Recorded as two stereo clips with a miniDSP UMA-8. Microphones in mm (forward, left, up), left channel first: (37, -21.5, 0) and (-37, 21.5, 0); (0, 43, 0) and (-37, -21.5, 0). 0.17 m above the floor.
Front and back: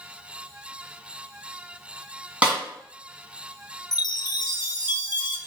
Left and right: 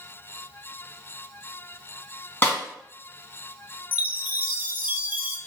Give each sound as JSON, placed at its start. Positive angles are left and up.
{"t": 2.4, "sound": "a snare drum", "azimuth_deg": 90, "distance_m": 1.6}
{"t": 3.9, "sound": "a chime", "azimuth_deg": -55, "distance_m": 0.6}